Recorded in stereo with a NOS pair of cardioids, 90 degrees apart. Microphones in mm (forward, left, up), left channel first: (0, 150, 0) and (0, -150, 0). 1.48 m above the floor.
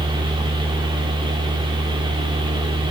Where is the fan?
15° right, 2.5 m.